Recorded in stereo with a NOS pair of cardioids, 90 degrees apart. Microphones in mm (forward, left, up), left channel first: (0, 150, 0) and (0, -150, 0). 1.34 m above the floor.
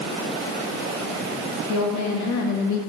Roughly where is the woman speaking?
Ahead left.